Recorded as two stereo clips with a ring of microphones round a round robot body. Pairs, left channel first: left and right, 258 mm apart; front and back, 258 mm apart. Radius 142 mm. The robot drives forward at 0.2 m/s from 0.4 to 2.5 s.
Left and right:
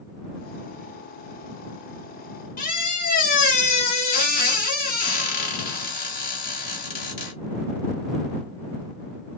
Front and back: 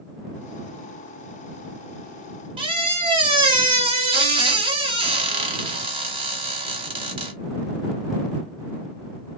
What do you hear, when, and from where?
2.6 s a squeak: 125° left, 0.5 m